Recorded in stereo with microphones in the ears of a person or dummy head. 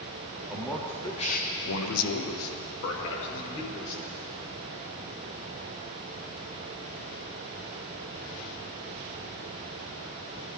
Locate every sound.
0.5 s a man speaking: 5° right (ahead or behind), 1.3 m; by 4.0 s 65° left (ahead or behind), 3.5 m